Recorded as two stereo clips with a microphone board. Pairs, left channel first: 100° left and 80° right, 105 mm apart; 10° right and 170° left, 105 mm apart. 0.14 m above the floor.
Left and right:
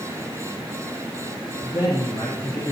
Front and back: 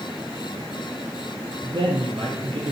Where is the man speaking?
140° left, 3.5 m; by 2.7 s 145° left, 4.5 m.